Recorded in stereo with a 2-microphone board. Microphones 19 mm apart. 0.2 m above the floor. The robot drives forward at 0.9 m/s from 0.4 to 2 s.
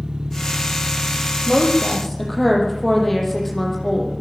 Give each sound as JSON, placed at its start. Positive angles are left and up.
{"t": 0.0, "sound": "an engine running", "side_deg": -55, "distance_m": 1.6}
{"t": 1.5, "sound": "a woman speaking", "side_deg": 5, "distance_m": 8.0}